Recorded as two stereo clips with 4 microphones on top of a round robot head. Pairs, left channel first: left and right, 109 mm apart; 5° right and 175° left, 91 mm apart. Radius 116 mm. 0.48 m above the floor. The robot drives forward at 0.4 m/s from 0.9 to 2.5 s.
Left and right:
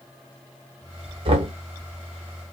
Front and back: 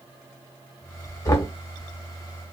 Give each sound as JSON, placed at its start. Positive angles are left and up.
{"t": 1.2, "sound": "knocking", "azimuth_deg": -55, "distance_m": 1.1}